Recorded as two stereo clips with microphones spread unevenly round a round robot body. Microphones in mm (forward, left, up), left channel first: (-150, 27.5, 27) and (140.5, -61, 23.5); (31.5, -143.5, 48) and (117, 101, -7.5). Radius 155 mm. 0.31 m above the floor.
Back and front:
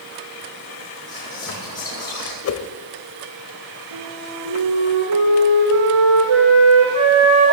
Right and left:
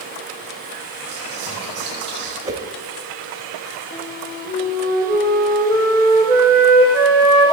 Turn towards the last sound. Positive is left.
turn(degrees=-35)